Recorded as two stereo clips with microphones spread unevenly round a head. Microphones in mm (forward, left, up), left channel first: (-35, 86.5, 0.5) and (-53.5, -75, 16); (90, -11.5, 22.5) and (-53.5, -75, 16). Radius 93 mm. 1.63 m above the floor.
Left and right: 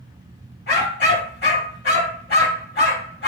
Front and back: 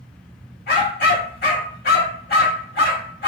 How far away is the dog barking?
About 2 m.